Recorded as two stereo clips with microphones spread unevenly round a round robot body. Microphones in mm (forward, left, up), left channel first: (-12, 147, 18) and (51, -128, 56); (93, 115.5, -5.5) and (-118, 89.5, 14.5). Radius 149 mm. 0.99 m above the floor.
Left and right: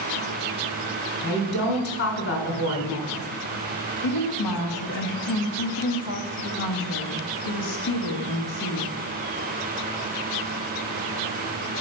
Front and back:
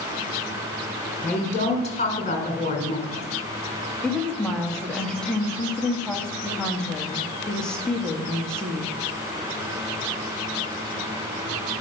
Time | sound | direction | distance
1.2 | a woman speaking | 65° left | 4 m
4.0 | a woman speaking | 95° left | 1.4 m